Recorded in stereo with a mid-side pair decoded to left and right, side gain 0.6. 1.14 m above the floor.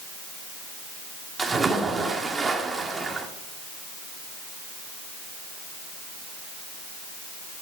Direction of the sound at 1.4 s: 20° right.